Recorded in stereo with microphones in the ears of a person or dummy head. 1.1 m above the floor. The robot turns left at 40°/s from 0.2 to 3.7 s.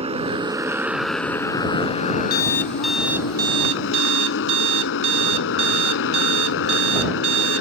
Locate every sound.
0.0 s a motorcycle: 140° right; by 7.6 s 80° left
2.3 s an alarm clock: 25° left; by 7.6 s 30° right